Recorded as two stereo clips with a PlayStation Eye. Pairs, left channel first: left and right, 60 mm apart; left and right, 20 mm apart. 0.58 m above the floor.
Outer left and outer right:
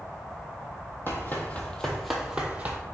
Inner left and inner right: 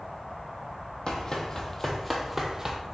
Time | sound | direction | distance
1.1 | running footsteps | 40° left (ahead or behind) | 0.8 m